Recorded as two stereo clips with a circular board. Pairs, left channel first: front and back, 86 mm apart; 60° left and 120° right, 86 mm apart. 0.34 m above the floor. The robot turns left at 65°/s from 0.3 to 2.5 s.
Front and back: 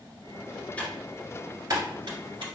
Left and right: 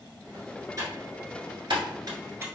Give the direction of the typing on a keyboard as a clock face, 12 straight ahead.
2 o'clock.